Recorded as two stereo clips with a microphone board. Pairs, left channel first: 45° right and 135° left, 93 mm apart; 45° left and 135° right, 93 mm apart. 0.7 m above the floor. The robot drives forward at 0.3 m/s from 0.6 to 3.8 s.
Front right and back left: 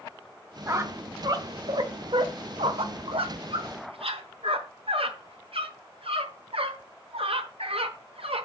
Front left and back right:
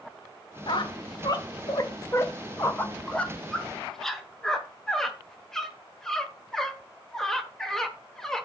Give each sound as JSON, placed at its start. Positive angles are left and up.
{"t": 0.7, "sound": "a squeak", "azimuth_deg": 75, "distance_m": 0.9}